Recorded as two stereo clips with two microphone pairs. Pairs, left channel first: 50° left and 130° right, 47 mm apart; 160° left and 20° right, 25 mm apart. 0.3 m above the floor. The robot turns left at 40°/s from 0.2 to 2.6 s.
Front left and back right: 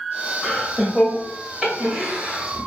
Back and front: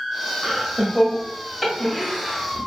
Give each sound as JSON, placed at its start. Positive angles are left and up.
{"t": 0.4, "sound": "laughter", "azimuth_deg": -25, "distance_m": 1.0}